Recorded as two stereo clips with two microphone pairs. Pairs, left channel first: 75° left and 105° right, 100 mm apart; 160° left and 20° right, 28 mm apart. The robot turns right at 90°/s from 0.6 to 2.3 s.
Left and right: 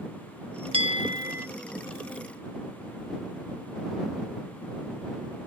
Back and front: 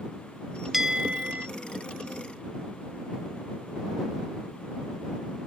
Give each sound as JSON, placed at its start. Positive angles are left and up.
{"t": 0.7, "sound": "a bell", "azimuth_deg": -100}